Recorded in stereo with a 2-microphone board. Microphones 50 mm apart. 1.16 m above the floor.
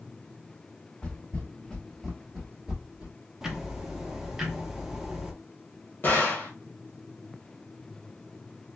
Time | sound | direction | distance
1.0 | footsteps | 20° left (ahead or behind) | 1.4 m
3.4 | ticking | 10° right (ahead or behind) | 0.6 m
6.0 | a gunshot | 40° left (ahead or behind) | 1.1 m